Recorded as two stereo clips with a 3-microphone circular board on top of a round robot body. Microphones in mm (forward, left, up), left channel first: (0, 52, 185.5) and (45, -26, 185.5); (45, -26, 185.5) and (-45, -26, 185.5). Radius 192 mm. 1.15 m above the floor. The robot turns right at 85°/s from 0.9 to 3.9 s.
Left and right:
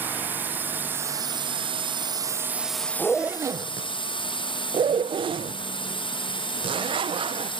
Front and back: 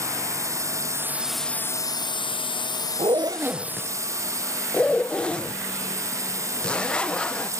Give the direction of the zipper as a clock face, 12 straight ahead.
5 o'clock.